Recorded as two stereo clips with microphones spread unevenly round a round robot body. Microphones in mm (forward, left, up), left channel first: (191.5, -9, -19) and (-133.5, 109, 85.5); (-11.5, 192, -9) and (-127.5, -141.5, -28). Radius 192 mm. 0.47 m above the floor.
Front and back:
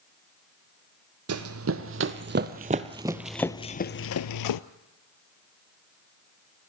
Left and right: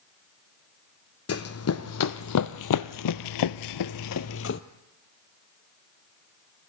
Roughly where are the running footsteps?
Behind left.